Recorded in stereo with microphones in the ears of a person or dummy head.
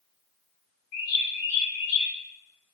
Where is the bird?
35° left (ahead or behind), 2.5 m.